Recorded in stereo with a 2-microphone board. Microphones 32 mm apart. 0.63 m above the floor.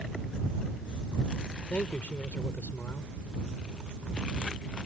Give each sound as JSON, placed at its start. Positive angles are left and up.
{"t": 1.7, "sound": "a man speaking", "side_deg": 60}